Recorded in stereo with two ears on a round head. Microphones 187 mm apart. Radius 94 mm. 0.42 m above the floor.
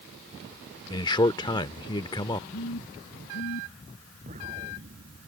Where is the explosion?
35° right (ahead or behind).